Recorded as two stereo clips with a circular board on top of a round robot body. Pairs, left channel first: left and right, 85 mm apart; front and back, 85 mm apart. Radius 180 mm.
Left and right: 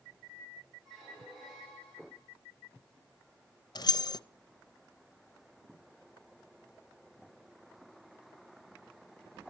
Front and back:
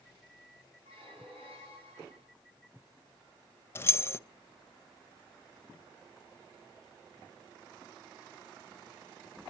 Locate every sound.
0.8 s a squeak: 175° left, 7.5 m
3.8 s keys jangling: 60° left, 0.7 m